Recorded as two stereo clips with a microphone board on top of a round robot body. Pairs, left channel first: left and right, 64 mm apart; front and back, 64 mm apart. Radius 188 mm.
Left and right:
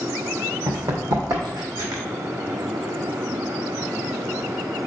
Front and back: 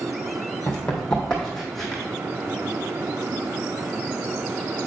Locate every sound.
0.7 s running footsteps: 70° right, 1.8 m; by 2.0 s 85° right, 2.5 m